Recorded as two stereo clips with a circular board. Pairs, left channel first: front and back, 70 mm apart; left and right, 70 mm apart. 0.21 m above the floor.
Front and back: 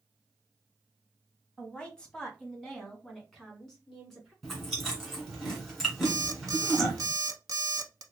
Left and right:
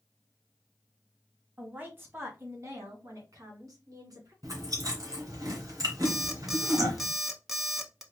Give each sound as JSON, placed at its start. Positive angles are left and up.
{"t": 1.6, "sound": "a woman speaking", "azimuth_deg": -55, "distance_m": 1.3}
{"t": 4.4, "sound": "chewing", "azimuth_deg": -90, "distance_m": 2.0}
{"t": 6.0, "sound": "an alarm clock", "azimuth_deg": -175, "distance_m": 0.7}